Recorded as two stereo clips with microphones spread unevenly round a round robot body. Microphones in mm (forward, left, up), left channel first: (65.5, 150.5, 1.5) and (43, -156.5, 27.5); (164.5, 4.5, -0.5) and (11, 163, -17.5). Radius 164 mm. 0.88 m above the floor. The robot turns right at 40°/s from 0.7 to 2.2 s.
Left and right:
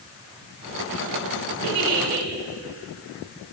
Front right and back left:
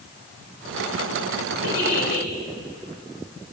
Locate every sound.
1.6 s a giggle: 55° right, 3.5 m; by 2.3 s 35° right, 3.5 m